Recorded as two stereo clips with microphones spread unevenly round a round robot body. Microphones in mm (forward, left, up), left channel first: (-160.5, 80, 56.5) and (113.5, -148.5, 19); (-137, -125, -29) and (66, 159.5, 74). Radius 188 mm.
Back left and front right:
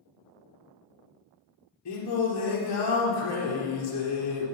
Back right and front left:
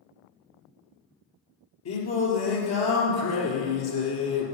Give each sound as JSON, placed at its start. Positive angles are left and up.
{"t": 1.9, "sound": "singing", "azimuth_deg": -175, "distance_m": 3.5}